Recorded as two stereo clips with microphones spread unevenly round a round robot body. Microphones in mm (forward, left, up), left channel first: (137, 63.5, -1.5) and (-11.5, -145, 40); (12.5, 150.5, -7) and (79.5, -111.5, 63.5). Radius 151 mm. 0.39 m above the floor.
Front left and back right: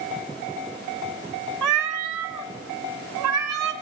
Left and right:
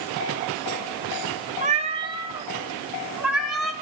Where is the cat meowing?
145° right, 1.5 m; by 3.7 s 170° right, 2.5 m.